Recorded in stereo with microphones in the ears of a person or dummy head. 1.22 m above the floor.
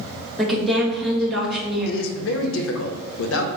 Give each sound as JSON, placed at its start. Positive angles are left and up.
{"t": 0.4, "sound": "a woman speaking", "side_deg": 0, "distance_m": 1.5}
{"t": 1.9, "sound": "a man speaking", "side_deg": 65, "distance_m": 0.7}